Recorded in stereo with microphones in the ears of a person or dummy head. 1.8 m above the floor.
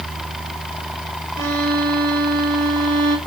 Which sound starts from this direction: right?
A violin, at 1.4 s.